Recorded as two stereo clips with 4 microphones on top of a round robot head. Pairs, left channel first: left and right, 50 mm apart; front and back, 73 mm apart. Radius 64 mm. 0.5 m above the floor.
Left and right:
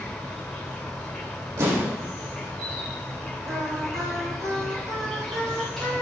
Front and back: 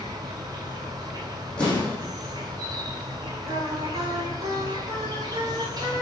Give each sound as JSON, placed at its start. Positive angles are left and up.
{"t": 0.0, "sound": "an insect", "azimuth_deg": 175, "distance_m": 3.0}
{"t": 1.6, "sound": "an explosion", "azimuth_deg": -75, "distance_m": 6.5}
{"t": 3.5, "sound": "singing", "azimuth_deg": -125, "distance_m": 2.5}